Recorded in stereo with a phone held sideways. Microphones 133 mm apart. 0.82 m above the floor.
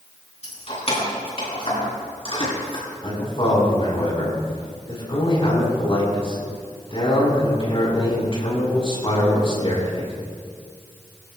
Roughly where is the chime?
No chime in this recording.